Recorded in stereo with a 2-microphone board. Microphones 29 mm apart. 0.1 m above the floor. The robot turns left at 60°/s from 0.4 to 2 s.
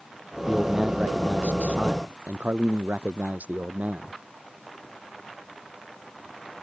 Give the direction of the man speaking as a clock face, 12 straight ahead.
12 o'clock.